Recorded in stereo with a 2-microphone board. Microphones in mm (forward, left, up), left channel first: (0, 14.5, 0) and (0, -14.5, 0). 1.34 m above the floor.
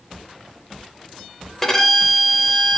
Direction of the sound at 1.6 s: 10° left (ahead or behind).